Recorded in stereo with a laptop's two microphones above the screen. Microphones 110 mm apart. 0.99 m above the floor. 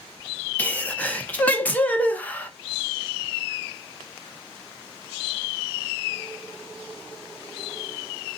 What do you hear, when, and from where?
0.6 s a sneeze: 15° left (ahead or behind), 0.8 m